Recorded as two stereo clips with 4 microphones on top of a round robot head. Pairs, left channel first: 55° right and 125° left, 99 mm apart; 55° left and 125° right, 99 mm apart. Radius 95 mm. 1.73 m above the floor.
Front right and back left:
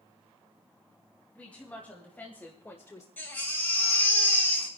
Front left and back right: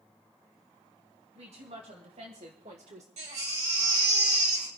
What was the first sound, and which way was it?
A woman speaking, 130° right.